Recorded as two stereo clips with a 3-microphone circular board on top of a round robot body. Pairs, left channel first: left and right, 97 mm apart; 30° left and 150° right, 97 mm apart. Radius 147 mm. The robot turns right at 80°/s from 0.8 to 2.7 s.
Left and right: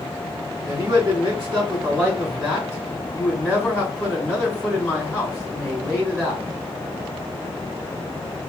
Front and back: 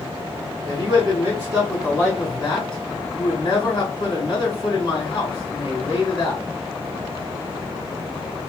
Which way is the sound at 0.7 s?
150° right.